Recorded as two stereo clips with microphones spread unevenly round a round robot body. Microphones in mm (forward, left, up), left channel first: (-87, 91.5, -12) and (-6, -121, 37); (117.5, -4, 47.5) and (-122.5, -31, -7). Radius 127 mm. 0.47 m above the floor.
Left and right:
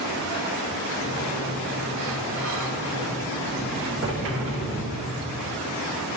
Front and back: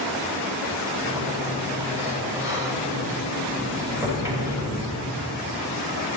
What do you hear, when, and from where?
1.0 s a sliding door: 100° right, 1.5 m